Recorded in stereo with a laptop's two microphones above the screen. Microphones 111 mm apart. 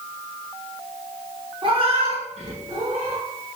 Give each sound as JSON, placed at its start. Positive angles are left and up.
{"t": 1.6, "sound": "a cat meowing", "side_deg": -45, "distance_m": 0.6}